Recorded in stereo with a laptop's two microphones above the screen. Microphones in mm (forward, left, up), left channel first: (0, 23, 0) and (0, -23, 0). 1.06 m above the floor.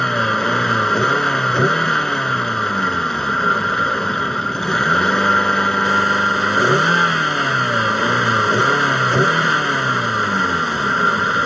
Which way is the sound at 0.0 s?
5° left (ahead or behind).